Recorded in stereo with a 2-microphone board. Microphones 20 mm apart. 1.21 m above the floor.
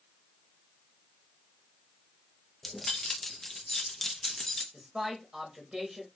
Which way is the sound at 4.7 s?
25° right (ahead or behind).